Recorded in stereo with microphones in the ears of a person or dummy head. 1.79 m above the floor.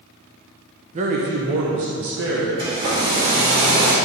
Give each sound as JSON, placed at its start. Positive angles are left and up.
{"t": 0.9, "sound": "a man speaking", "side_deg": -35, "distance_m": 0.9}
{"t": 2.6, "sound": "a hair dryer", "side_deg": -50, "distance_m": 2.5}